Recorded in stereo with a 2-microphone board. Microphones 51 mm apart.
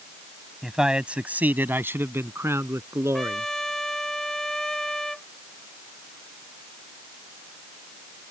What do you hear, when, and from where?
0.6 s a man speaking: 5° right (ahead or behind); by 3.5 s 70° right (ahead or behind)
3.1 s a trumpet: 10° left (ahead or behind)